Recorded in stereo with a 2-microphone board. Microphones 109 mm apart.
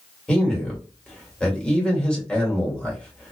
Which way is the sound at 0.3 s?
10° left (ahead or behind).